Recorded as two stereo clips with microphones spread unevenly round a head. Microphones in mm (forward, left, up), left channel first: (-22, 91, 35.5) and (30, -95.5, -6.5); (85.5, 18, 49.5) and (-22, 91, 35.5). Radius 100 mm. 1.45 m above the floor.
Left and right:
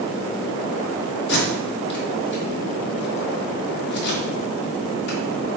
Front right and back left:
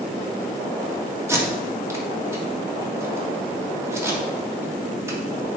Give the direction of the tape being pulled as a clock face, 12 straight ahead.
10 o'clock.